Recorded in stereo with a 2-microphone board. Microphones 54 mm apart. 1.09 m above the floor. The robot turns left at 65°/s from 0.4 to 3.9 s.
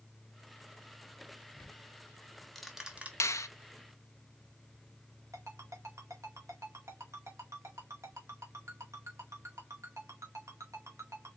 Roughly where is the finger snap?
Left.